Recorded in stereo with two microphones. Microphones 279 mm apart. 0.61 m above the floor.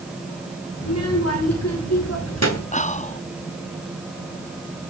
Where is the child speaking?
60° left (ahead or behind), 6 m; by 2.6 s 70° left (ahead or behind), 7 m.